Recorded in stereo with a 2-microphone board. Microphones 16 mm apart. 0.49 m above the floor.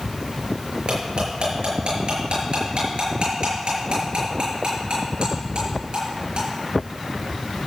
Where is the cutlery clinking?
85° right, 6 m.